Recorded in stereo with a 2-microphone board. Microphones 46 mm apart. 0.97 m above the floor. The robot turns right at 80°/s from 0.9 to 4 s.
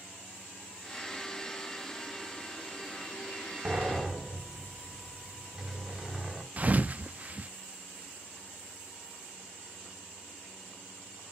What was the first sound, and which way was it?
A sliding door, 35° right (ahead or behind).